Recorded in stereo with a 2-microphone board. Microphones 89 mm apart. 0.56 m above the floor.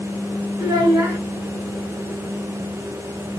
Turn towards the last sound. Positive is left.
turn(degrees=-35)  # may be behind; listen again after turning